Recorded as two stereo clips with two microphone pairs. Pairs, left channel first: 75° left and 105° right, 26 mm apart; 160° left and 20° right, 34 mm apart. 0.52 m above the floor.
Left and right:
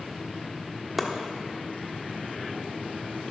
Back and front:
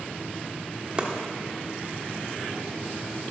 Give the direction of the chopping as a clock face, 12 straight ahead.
12 o'clock.